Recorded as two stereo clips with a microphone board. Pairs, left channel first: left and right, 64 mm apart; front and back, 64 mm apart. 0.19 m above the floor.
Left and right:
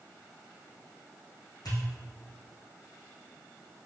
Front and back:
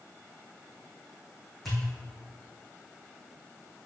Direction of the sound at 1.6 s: 90° left.